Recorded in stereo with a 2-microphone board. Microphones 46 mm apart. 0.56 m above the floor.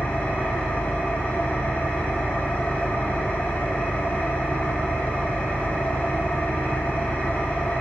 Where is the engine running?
35° left (ahead or behind), 1.6 m.